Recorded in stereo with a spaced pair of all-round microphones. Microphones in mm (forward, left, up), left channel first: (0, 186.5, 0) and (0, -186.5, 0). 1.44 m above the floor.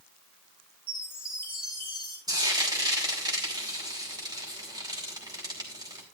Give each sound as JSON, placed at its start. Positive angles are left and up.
{"t": 0.9, "sound": "a chime", "side_deg": -25, "distance_m": 4.5}
{"t": 2.3, "sound": "frying", "side_deg": -10, "distance_m": 3.5}